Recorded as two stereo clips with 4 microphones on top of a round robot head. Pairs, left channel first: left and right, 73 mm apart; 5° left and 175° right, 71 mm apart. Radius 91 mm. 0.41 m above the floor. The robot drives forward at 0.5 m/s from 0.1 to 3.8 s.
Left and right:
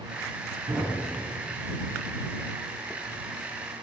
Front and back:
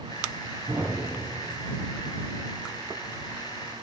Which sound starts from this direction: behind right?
A thud, at 0.7 s.